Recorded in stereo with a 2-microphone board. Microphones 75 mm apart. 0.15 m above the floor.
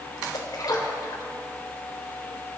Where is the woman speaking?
I don't hear a woman speaking.